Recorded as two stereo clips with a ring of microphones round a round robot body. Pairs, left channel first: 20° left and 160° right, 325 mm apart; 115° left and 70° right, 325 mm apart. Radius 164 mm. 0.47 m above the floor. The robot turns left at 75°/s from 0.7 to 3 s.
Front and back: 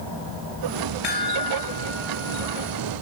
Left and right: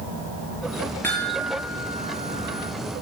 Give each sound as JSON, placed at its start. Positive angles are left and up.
{"t": 1.0, "sound": "a chime", "azimuth_deg": 30, "distance_m": 6.0}